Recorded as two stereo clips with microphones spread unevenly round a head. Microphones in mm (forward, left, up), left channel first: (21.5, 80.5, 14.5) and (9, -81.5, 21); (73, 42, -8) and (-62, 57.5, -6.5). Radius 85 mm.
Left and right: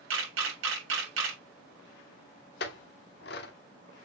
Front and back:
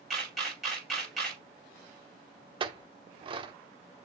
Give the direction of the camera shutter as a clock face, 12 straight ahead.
3 o'clock.